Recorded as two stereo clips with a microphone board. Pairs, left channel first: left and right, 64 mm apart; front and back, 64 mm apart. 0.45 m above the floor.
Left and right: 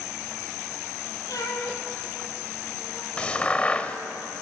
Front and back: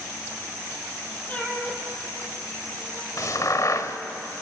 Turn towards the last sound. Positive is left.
turn(degrees=20)